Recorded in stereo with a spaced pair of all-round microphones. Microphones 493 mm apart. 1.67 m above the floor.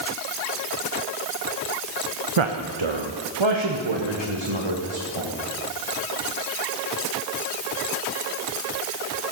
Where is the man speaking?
80° right, 0.9 m; by 5.3 s 70° right (ahead or behind), 2.5 m.